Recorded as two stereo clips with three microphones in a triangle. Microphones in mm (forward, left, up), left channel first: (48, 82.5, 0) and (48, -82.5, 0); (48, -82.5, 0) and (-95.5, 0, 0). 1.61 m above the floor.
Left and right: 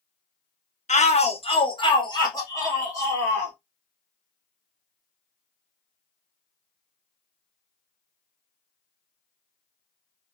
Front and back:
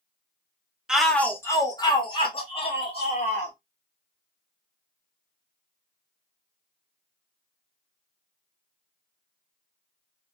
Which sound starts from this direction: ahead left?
A shout, at 0.9 s.